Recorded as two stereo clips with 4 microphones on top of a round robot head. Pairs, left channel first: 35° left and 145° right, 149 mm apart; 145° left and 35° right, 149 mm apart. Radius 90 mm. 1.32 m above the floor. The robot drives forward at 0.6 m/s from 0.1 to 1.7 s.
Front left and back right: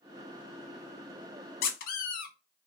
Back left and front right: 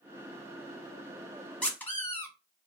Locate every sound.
1.6 s a squeak: 60° left, 0.6 m; by 2.3 s 65° left, 0.6 m